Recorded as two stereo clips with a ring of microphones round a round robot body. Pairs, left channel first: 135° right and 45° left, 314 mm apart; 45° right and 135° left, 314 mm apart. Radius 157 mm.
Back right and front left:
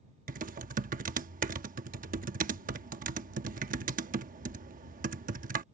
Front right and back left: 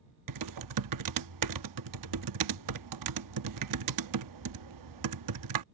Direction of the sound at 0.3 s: 110° left.